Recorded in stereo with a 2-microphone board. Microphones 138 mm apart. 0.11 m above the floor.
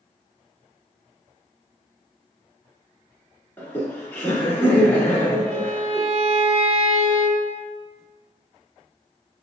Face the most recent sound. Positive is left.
turn(degrees=-50)  # may be behind; listen again after turning